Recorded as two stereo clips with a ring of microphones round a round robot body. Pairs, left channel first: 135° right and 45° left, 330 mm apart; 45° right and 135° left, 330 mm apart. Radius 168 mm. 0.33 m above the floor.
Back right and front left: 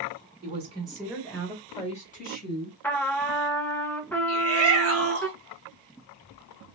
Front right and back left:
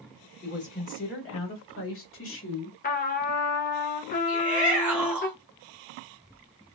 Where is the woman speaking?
5° right, 1.2 m; by 2.7 s 90° right, 1.6 m.